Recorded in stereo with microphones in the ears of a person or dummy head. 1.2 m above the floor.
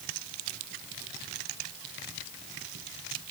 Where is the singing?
I don't hear singing.